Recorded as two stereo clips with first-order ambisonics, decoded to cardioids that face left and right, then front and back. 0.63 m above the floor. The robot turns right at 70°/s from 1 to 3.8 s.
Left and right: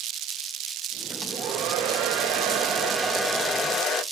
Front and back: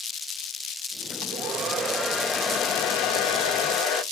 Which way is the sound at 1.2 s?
135° right.